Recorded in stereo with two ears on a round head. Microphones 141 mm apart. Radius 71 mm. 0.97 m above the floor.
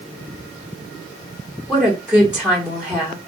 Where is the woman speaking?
5° right (ahead or behind), 2.5 m.